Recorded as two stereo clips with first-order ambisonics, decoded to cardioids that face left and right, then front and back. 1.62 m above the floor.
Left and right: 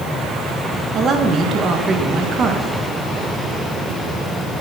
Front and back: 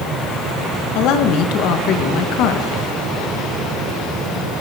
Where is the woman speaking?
30° right, 1.4 m.